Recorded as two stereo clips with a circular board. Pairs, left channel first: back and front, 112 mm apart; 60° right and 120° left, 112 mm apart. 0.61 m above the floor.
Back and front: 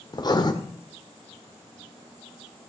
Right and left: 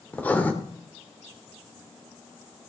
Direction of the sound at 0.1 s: 135° right.